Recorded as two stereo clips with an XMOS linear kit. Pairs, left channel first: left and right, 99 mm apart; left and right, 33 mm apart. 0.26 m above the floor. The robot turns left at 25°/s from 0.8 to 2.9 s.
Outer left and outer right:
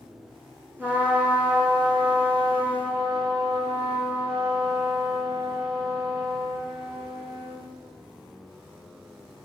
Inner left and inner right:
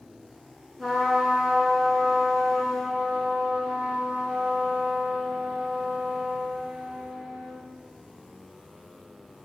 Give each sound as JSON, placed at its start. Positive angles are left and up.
{"t": 0.8, "sound": "a trumpet", "azimuth_deg": -20, "distance_m": 1.1}